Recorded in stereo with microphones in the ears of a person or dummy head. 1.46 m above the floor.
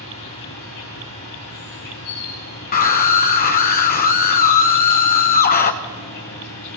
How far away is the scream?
About 1.5 m.